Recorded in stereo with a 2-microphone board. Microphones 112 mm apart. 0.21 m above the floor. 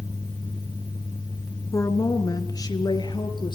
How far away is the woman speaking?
About 2.5 m.